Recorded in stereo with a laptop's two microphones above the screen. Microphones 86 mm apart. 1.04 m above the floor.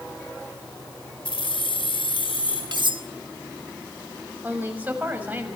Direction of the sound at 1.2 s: 75° left (ahead or behind).